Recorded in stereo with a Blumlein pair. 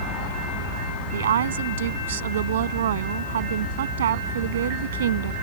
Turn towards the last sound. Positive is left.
turn(degrees=-60)